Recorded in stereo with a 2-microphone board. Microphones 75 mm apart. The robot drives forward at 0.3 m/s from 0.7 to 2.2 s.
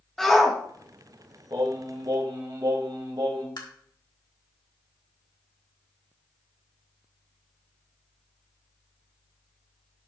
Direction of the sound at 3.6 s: 70° left (ahead or behind).